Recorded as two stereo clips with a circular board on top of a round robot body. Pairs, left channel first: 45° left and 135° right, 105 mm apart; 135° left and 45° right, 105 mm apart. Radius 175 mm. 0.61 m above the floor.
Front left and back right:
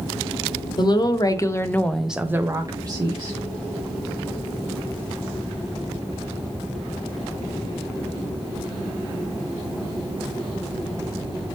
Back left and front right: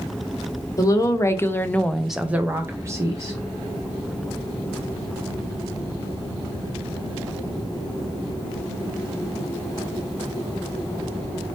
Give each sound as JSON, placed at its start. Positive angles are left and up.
{"t": 0.8, "sound": "a woman speaking", "azimuth_deg": 80, "distance_m": 0.8}